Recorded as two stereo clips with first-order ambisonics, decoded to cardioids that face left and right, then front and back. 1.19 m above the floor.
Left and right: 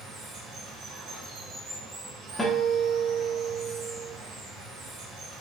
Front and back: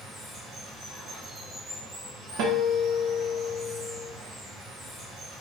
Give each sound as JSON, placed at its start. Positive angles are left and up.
{"t": 0.0, "sound": "running water", "azimuth_deg": -120, "distance_m": 1.4}
{"t": 2.4, "sound": "a guitar", "azimuth_deg": 175, "distance_m": 0.7}